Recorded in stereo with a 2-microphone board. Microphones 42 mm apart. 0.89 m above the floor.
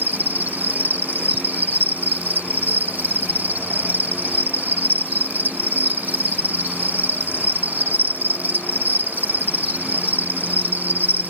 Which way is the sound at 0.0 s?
45° right (ahead or behind).